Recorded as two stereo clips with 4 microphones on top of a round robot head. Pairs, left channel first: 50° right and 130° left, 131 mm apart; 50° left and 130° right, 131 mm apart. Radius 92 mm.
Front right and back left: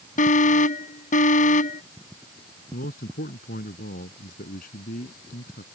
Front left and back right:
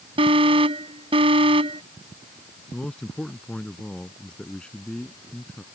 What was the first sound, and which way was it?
An alarm, 80° right.